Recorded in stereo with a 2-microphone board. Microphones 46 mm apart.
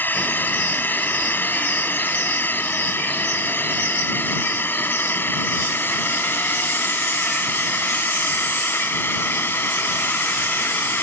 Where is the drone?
45° left (ahead or behind); by 11.0 s 55° left (ahead or behind).